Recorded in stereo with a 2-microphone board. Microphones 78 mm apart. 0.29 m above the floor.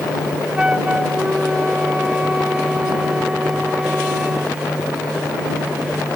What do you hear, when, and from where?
0.6 s a flute: 10° right (ahead or behind)